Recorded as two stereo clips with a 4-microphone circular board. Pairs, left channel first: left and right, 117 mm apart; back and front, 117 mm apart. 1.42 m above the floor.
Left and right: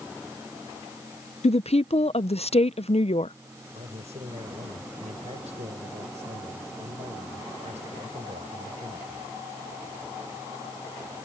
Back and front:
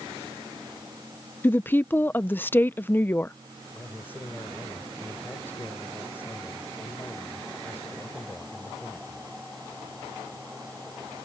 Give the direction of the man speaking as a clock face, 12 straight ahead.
4 o'clock.